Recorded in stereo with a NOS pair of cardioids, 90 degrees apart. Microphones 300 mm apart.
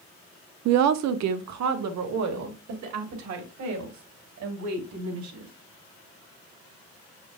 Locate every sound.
0.7 s a woman speaking: 65° right, 0.7 m; by 5.5 s 70° right, 3.5 m